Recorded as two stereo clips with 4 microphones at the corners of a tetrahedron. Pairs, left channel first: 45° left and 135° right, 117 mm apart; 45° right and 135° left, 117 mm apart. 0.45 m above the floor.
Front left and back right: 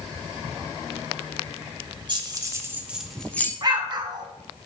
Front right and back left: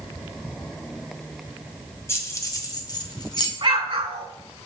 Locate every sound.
2.1 s keys jangling: 100° right, 0.9 m; by 3.5 s 20° right, 0.8 m
3.6 s an explosion: 175° left, 0.8 m